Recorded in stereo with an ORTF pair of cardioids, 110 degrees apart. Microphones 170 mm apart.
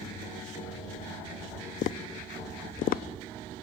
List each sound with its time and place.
1.8 s tapping: 60° left, 0.7 m